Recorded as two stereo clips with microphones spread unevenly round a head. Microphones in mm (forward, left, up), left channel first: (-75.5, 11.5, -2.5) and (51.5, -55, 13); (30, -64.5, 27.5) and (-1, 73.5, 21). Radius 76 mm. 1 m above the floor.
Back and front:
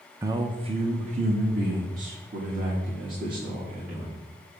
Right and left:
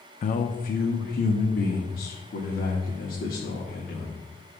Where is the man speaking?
100° right, 0.6 m; by 4.2 s 50° right, 2.5 m.